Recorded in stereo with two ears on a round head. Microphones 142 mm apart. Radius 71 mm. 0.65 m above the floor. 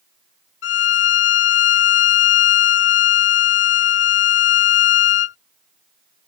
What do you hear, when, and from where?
0.6 s a violin: 75° left (ahead or behind)